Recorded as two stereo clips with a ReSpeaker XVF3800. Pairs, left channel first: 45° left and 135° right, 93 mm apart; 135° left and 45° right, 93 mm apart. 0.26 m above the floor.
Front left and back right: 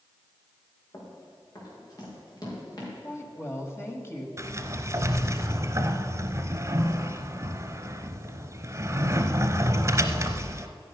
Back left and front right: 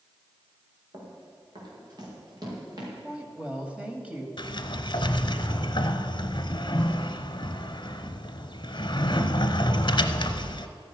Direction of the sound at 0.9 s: 5° right.